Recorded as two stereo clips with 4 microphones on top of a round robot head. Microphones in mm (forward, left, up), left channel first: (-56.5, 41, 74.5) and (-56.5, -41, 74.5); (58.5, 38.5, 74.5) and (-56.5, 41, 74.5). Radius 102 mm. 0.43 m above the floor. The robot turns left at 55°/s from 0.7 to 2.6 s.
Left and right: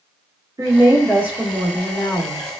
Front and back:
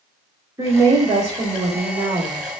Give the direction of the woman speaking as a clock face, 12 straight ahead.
4 o'clock.